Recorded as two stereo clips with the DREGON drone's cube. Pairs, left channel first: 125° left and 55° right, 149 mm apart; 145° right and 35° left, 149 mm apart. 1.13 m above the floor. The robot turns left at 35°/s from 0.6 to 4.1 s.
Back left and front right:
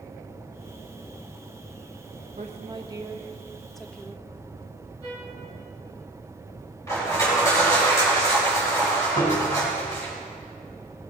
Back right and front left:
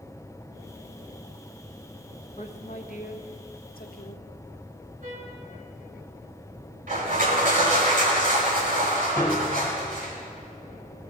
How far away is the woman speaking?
About 1.2 m.